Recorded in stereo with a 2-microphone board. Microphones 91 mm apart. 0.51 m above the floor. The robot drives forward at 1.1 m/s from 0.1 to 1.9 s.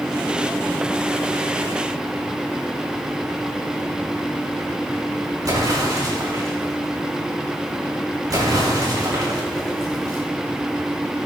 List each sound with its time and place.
5.4 s an explosion: 45° right (ahead or behind), 6 m